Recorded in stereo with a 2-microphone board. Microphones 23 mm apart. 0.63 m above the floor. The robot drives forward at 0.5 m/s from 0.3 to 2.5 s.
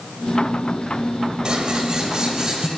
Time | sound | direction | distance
1.4 | scissors | 35° right (ahead or behind) | 1.7 m